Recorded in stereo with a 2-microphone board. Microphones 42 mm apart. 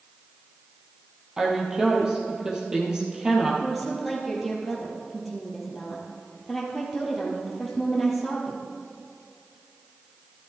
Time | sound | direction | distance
1.4 | a woman speaking | 15° right (ahead or behind) | 3.5 m
3.6 | a woman speaking | centre (ahead or behind) | 2.5 m